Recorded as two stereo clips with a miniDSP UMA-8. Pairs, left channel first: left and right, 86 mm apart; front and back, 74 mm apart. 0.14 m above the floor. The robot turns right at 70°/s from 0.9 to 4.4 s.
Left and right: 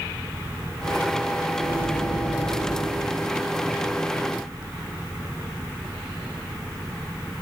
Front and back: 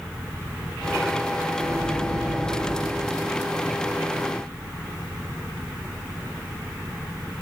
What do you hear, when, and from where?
1.6 s a microwave: 85° right, 1.5 m; by 3.0 s 15° left, 1.5 m